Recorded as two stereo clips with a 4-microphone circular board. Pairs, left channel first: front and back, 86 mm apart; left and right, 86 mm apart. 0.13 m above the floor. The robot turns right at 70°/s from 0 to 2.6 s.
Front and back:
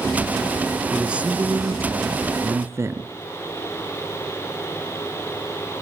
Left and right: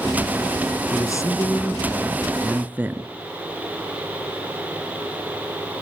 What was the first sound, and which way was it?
A man speaking, 95° left.